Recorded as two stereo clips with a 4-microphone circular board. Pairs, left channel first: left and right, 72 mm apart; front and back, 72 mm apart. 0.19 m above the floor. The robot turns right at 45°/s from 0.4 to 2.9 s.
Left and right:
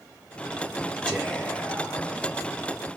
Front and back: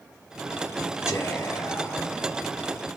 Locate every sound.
1.1 s whispering: 5° right, 1.2 m; by 2.1 s 45° left, 1.2 m